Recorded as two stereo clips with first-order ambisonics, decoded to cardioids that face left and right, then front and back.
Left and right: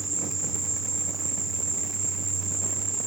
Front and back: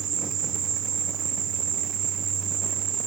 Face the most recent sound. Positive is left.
turn(degrees=-165)